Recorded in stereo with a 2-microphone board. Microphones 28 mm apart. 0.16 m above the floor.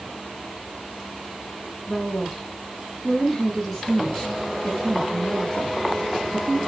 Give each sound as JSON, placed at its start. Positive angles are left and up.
{"t": 1.9, "sound": "a woman speaking", "side_deg": 10, "distance_m": 6.5}